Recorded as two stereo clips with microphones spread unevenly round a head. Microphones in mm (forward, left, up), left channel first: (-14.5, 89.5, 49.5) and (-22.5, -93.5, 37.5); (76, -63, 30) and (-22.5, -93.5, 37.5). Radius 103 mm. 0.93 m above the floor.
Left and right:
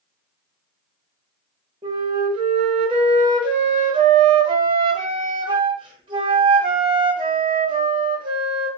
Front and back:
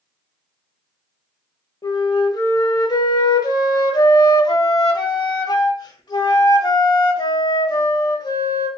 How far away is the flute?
About 0.8 m.